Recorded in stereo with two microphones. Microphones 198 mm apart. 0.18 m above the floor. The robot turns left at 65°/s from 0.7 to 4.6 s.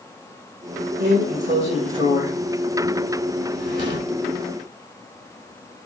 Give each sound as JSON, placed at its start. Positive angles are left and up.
{"t": 1.0, "sound": "a drawer", "azimuth_deg": -85, "distance_m": 1.0}